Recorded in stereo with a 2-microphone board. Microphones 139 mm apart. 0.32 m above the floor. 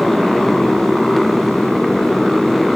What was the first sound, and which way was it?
A motorcycle, centre (ahead or behind).